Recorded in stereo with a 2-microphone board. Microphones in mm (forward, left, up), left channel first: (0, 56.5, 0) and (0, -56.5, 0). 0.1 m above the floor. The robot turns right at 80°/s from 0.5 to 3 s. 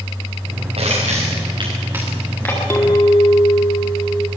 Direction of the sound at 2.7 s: 20° left (ahead or behind).